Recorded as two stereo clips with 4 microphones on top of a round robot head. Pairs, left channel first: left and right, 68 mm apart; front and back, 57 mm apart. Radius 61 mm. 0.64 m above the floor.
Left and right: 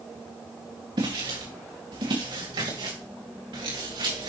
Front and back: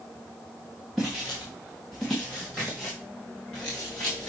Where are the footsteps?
90° right, 3.5 m; by 4.3 s 80° right, 5 m.